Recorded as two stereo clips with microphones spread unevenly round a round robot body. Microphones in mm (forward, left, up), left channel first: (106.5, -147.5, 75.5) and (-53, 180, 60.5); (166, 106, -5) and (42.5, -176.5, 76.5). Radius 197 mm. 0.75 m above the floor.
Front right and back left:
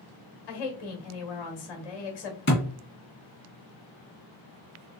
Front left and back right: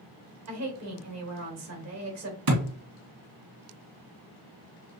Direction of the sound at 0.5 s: 75° right.